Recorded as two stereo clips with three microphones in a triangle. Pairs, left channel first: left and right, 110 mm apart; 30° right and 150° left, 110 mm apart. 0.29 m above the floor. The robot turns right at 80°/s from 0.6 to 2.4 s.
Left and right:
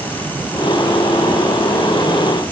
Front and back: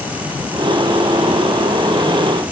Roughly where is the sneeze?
No sneeze in this recording.